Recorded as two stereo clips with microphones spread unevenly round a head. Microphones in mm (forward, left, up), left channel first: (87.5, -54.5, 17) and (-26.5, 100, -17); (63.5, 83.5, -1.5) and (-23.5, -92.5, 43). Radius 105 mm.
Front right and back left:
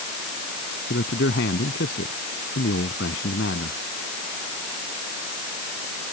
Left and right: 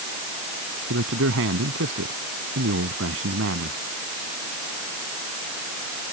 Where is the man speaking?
95° right.